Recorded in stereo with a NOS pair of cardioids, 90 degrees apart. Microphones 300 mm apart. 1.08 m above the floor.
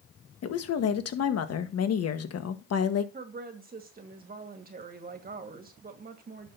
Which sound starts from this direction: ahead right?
A woman speaking, at 3.1 s.